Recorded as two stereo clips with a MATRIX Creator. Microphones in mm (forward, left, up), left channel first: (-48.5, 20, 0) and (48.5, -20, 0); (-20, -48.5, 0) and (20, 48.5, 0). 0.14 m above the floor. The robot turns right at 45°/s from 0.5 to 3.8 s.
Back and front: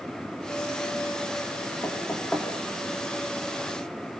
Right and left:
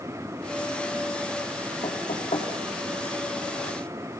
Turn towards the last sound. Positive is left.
turn(degrees=-60)